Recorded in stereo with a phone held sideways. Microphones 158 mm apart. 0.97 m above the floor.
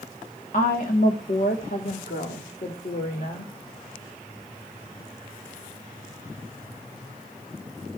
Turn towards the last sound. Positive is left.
turn(degrees=75)  # may be behind; listen again after turning